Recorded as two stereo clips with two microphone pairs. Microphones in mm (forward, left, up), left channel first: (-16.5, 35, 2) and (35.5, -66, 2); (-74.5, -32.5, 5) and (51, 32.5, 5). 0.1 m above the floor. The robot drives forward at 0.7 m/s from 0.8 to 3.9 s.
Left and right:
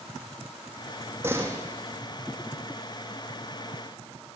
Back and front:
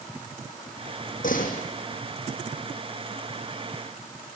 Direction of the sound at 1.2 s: 130° right.